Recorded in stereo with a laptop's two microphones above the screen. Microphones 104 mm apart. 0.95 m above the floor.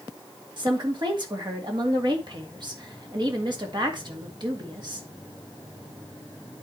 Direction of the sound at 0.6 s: 45° right (ahead or behind).